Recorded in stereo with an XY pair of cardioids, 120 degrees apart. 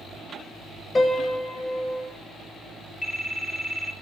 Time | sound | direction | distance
0.9 | a piano | 20° left | 1.8 m
3.0 | a phone ringing | 10° left | 2 m